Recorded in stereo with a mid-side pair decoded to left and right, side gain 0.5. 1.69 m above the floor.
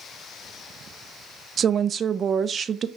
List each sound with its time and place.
1.6 s a woman speaking: 45° right, 0.6 m